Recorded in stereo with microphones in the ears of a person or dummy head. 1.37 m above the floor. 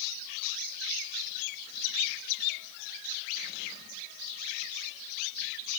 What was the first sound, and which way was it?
Only background noise.